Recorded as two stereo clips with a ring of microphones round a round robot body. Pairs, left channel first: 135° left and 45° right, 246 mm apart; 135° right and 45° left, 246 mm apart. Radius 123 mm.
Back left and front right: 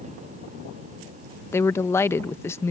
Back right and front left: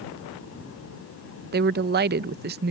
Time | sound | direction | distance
1.5 | a woman speaking | 60° left | ?